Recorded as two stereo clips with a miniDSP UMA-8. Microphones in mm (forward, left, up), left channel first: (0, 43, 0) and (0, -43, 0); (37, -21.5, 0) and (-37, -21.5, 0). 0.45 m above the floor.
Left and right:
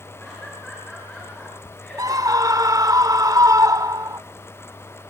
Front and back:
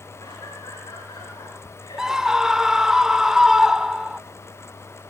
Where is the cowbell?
No cowbell in this recording.